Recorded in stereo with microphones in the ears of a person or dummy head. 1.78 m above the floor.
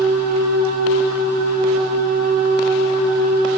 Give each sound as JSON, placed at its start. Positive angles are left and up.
{"t": 0.0, "sound": "a machine running", "side_deg": -60, "distance_m": 4.0}